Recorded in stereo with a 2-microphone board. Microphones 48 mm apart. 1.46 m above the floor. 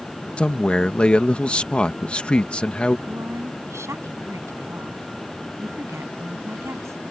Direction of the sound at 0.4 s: 25° left (ahead or behind).